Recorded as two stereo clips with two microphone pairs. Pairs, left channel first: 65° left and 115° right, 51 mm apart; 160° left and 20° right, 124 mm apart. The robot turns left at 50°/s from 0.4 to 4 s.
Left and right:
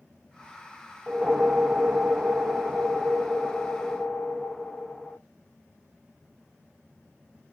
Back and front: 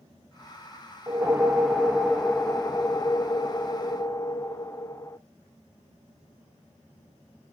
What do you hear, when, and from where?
1.1 s a whoosh: 65° right, 0.5 m; by 5.2 s 150° left, 0.5 m